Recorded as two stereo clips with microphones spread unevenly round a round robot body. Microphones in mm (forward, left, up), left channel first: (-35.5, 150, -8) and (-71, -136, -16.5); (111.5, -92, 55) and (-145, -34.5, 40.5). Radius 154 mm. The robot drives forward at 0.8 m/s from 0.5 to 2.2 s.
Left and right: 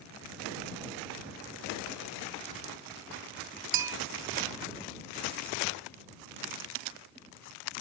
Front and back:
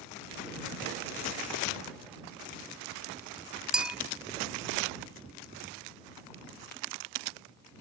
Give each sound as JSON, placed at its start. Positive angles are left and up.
{"t": 3.7, "sound": "a bell", "azimuth_deg": -105}